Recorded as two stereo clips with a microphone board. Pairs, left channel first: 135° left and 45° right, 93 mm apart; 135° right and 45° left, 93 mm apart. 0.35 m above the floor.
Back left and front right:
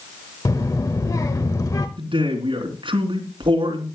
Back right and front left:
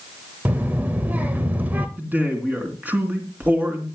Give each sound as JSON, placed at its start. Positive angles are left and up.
{"t": 0.5, "sound": "a child speaking", "azimuth_deg": 105, "distance_m": 0.8}
{"t": 2.0, "sound": "a man speaking", "azimuth_deg": -25, "distance_m": 3.0}